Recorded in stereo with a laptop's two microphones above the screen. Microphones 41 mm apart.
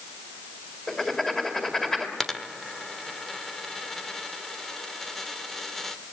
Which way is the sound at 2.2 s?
5° left (ahead or behind).